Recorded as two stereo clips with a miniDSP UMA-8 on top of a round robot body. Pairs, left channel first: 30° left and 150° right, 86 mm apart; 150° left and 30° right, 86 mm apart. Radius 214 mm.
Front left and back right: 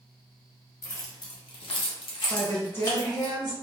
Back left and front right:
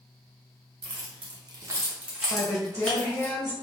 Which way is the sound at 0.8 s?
20° right.